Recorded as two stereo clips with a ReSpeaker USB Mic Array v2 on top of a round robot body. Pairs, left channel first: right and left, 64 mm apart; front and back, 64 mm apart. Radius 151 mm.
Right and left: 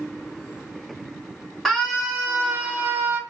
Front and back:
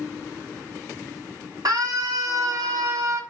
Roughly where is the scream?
Behind.